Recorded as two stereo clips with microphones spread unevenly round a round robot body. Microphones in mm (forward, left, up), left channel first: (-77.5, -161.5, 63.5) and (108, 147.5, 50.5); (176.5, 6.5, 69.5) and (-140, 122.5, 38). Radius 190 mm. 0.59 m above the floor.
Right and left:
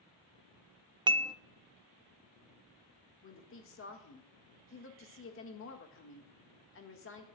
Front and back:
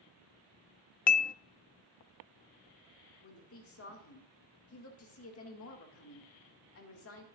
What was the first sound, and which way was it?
Dishes clattering, 10° left.